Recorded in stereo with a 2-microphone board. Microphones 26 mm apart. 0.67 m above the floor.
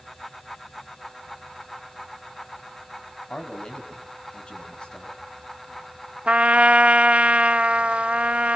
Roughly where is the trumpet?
Right.